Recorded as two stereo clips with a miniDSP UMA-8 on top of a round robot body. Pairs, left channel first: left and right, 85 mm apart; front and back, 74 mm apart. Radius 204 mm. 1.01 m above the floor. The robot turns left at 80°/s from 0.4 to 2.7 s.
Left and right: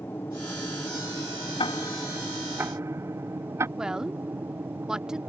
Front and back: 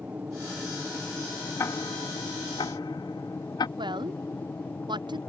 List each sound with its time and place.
0.0 s an aircraft: 130° left; by 5.3 s 40° right
1.6 s ticking: 60° left; by 3.7 s 30° right
3.8 s a woman speaking: 170° right